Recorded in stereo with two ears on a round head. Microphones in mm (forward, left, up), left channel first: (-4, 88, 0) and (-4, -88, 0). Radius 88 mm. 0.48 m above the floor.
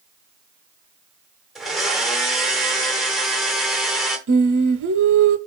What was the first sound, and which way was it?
A blender, centre (ahead or behind).